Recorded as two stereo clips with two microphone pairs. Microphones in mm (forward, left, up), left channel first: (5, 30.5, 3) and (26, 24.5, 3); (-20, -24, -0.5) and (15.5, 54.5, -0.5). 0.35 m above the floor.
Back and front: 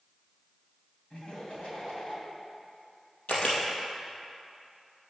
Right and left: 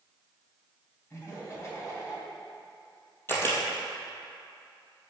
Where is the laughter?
170° right, 2.5 m.